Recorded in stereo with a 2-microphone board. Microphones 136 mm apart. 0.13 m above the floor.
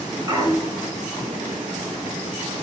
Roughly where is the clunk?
Right.